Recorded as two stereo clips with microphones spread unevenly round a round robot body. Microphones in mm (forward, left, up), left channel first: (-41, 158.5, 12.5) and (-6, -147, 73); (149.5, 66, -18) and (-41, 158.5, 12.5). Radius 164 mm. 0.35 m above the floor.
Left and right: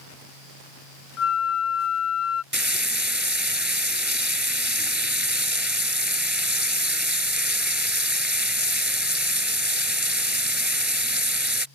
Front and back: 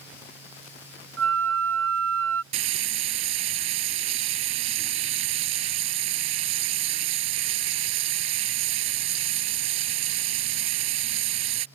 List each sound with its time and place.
1.2 s a flute: 140° left
2.5 s frying: 170° right